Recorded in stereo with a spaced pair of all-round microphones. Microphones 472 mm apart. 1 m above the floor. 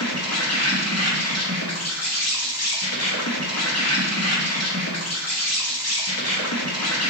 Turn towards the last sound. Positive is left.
turn(degrees=30)  # may be behind; listen again after turning